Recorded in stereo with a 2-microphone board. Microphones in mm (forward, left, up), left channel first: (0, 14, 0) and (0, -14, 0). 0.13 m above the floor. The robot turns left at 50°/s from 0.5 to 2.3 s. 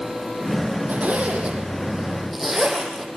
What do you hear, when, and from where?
0.9 s a zipper: 70° right (ahead or behind), 4 m; by 3.1 s 5° right (ahead or behind), 4 m